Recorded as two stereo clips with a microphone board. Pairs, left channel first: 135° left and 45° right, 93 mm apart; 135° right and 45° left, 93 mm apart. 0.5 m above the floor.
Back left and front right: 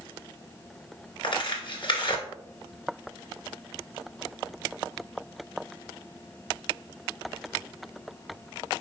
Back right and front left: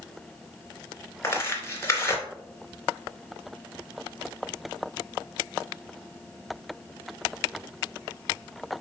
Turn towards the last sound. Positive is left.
turn(degrees=165)